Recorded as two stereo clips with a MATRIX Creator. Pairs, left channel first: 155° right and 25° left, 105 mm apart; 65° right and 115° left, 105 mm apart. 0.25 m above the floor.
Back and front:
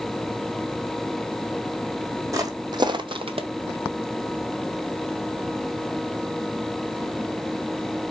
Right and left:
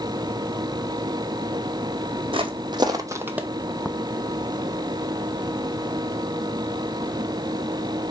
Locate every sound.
2.3 s footsteps: 80° left, 0.8 m; by 3.5 s 30° left, 0.5 m